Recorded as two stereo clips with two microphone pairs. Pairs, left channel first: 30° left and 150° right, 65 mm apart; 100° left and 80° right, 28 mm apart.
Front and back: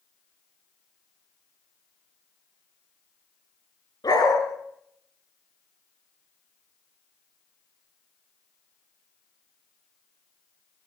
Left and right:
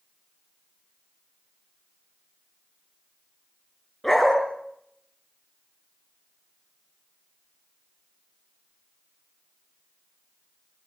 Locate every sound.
4.0 s a dog barking: 20° left, 6.5 m